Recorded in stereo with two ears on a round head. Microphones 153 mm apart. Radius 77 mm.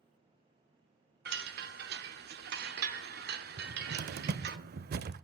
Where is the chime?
60° right (ahead or behind), 1.0 m.